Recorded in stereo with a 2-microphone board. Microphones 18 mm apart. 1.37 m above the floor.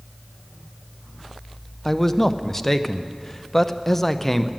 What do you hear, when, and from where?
1.9 s a man speaking: 15° left (ahead or behind), 0.5 m